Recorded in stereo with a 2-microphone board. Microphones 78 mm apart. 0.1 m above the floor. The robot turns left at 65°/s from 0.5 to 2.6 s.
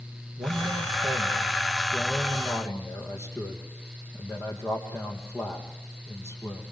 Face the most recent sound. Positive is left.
turn(degrees=140)